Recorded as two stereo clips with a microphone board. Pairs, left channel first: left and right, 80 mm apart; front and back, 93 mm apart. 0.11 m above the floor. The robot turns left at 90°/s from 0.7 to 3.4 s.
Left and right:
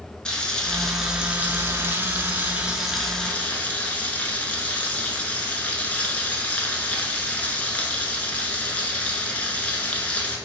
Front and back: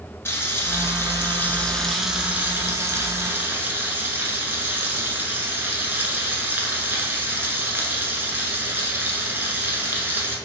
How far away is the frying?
About 0.6 m.